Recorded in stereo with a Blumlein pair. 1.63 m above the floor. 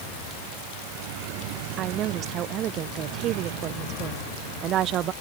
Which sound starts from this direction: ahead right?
A woman speaking, at 1.8 s.